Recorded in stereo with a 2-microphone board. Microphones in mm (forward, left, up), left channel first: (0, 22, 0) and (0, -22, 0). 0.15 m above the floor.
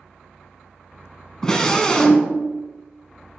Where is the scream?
15° left (ahead or behind), 1.1 m.